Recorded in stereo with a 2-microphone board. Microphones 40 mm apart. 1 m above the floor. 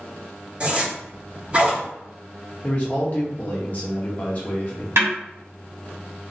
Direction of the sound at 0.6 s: 25° right (ahead or behind).